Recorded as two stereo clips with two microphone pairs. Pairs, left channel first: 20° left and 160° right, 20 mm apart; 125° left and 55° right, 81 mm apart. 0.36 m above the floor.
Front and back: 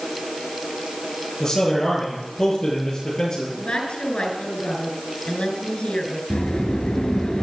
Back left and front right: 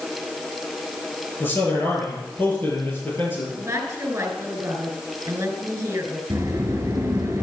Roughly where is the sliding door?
Ahead.